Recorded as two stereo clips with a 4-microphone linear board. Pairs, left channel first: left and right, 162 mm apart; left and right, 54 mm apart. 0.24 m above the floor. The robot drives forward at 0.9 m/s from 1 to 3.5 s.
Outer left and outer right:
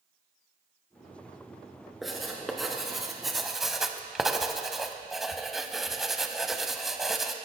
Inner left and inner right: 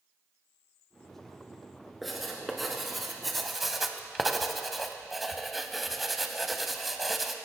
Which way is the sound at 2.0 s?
Centre (ahead or behind).